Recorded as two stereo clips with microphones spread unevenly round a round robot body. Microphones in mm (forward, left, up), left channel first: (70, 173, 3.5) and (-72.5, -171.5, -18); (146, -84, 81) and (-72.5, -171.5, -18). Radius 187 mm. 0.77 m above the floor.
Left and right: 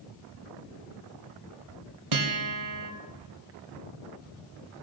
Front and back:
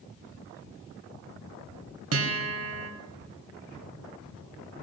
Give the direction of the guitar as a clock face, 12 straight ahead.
5 o'clock.